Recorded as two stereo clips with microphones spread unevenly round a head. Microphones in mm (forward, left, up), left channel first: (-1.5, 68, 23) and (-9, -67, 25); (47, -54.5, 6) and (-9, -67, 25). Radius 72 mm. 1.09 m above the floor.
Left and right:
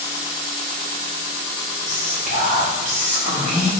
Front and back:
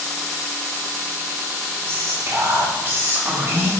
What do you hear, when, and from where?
1.9 s whispering: 120° right, 3 m